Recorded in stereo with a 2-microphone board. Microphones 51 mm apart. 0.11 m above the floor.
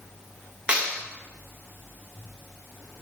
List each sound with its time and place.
0.7 s a clap: 20° right (ahead or behind), 8.5 m